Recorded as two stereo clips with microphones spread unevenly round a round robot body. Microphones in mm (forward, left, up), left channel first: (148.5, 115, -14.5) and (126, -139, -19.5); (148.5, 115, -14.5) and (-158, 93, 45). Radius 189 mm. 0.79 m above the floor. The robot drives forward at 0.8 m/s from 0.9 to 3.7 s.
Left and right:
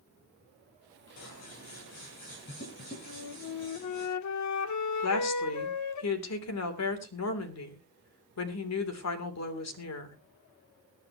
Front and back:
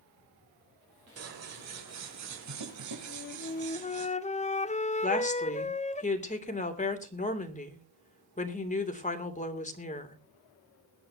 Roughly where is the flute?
Ahead left.